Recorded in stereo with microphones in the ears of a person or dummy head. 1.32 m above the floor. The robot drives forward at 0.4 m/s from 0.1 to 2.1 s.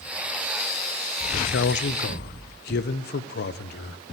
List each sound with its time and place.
1.3 s a man speaking: 60° left (ahead or behind), 0.7 m; by 4.0 s 50° left (ahead or behind), 0.8 m